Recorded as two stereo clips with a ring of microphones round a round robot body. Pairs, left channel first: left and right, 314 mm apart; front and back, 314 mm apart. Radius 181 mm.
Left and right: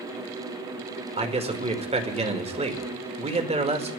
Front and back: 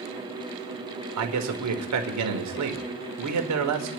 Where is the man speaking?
160° right, 2 m.